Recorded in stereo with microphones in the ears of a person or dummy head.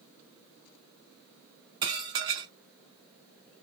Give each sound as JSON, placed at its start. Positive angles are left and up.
{"t": 1.8, "sound": "dishes clattering", "side_deg": -25, "distance_m": 0.9}